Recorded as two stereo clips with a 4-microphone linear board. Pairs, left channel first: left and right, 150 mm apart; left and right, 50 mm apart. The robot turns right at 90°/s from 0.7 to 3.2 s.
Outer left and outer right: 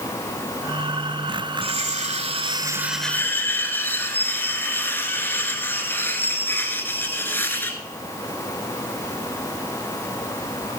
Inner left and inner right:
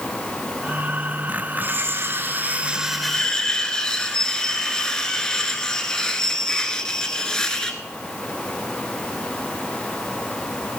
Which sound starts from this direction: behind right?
Cutlery clinking, at 1.6 s.